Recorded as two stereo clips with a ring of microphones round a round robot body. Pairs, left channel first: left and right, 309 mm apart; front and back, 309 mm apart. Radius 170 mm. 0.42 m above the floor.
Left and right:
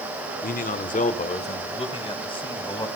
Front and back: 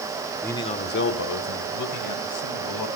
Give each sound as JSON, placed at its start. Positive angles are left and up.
{"t": 0.4, "sound": "a man speaking", "azimuth_deg": 80, "distance_m": 1.1}